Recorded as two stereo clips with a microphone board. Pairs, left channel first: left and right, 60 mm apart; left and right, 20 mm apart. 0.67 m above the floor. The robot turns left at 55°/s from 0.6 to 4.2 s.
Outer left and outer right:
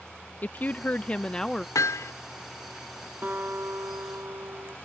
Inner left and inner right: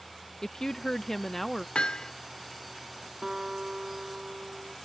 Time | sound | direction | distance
0.4 | a woman speaking | 70° left | ?
1.8 | hammering | 65° left (ahead or behind) | ?
3.2 | a guitar | 30° right | ?